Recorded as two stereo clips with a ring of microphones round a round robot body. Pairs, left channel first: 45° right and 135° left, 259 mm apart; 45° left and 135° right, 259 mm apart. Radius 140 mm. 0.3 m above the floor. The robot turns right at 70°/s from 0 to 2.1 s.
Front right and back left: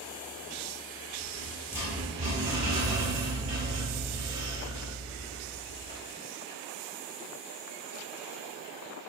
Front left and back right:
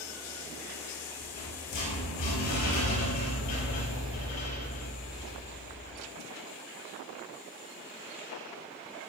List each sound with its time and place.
1.2 s a rattle: straight ahead, 5.5 m; by 6.0 s 60° left, 5.5 m